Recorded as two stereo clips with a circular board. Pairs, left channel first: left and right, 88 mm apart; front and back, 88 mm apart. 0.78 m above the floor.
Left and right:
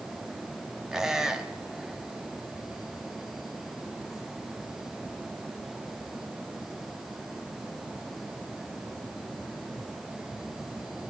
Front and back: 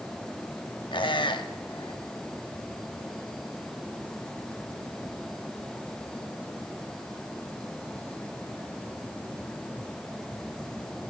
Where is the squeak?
10° right, 1.0 m.